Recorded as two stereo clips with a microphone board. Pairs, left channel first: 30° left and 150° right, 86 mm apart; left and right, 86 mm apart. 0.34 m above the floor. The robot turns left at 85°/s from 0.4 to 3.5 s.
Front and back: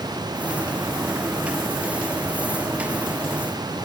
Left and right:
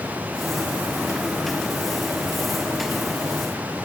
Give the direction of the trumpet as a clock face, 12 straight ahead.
No trumpet in this recording.